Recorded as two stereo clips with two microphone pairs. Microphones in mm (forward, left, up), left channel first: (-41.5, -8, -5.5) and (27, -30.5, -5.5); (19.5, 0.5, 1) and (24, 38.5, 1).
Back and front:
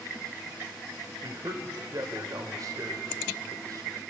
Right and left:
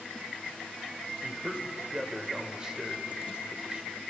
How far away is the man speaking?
About 3 m.